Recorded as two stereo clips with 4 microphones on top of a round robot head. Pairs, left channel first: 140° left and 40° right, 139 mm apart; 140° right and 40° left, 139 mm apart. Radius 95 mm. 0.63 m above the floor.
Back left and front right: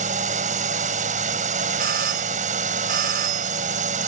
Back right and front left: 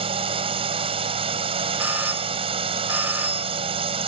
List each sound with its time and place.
0.0 s a drone: 10° right
1.8 s a doorbell: 35° right